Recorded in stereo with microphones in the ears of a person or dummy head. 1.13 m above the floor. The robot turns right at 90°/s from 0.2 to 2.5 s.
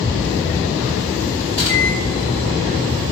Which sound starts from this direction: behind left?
A microwave, at 1.5 s.